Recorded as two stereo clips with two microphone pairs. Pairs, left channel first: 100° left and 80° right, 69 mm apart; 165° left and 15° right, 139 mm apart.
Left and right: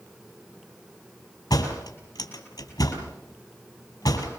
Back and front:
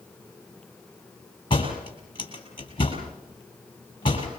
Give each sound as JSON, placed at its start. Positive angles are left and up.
{"t": 1.5, "sound": "a door slam", "azimuth_deg": 110, "distance_m": 5.5}